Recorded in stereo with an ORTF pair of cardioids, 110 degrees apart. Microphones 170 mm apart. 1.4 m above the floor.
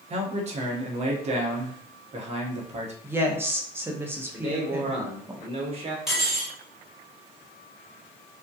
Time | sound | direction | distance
0.1 | a man speaking | 40° right | 0.8 m
3.0 | a woman speaking | 15° right | 0.7 m
4.3 | a man speaking | 35° right | 1.0 m
6.1 | cutlery clinking | straight ahead | 1.5 m